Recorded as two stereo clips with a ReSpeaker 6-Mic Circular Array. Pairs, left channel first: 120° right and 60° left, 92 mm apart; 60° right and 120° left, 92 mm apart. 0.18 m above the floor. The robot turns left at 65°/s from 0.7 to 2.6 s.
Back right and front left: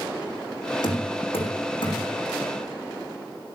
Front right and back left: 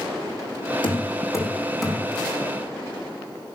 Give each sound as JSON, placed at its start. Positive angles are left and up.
{"t": 0.8, "sound": "knocking", "azimuth_deg": -85, "distance_m": 6.0}